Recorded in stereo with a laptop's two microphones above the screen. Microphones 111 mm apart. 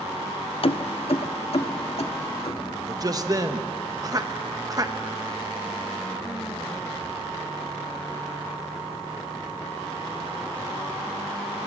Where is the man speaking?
35° right (ahead or behind), 1.0 m.